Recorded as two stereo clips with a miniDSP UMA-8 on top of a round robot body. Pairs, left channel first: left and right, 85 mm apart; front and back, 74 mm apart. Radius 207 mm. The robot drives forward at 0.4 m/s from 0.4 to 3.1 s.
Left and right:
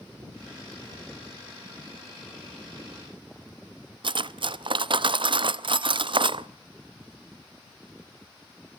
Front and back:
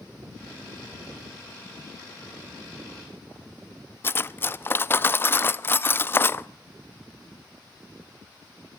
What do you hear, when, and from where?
4.0 s cutlery clinking: 65° right, 0.7 m